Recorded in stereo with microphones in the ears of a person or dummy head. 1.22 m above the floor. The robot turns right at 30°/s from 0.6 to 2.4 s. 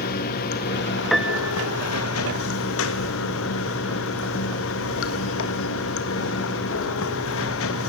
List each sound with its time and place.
0.0 s running water: 55° left, 1.9 m; by 7.9 s 105° left, 1.9 m
1.1 s a piano: centre (ahead or behind), 0.9 m; by 1.7 s 15° right (ahead or behind), 0.9 m